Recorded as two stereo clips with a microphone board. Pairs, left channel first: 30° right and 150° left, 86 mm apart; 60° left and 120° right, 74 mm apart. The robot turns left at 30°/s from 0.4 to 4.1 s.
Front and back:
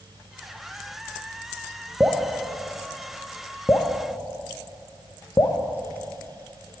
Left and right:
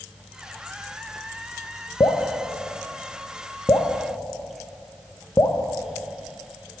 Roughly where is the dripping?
Left.